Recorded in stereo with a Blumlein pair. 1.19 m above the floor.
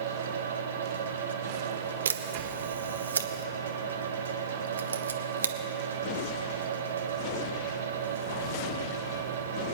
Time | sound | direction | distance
0.0 | a fan | 65° right | 1.3 m
2.0 | a camera shutter | 70° right | 0.7 m